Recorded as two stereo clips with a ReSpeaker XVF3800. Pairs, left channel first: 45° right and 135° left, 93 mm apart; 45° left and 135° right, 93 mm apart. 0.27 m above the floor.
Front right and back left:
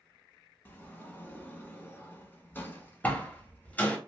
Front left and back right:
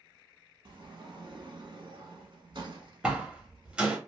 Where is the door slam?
75° right, 0.9 m.